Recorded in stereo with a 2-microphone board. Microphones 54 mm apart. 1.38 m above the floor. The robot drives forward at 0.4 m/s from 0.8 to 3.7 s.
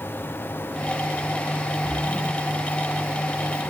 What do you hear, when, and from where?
1.8 s a splash: centre (ahead or behind), 1.0 m